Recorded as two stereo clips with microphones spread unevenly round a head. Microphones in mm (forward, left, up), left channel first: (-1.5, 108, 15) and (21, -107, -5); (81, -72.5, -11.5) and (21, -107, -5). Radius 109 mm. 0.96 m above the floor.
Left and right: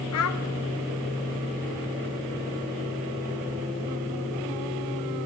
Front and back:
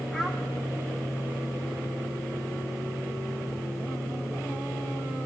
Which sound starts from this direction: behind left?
A child speaking, at 0.1 s.